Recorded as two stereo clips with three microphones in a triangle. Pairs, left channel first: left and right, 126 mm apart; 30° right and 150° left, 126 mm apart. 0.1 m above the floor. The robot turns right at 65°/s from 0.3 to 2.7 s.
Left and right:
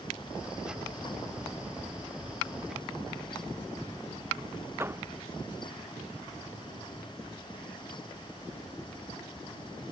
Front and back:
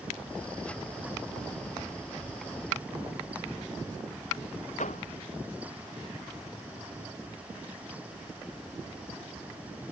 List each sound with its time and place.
4.8 s a door slam: 20° right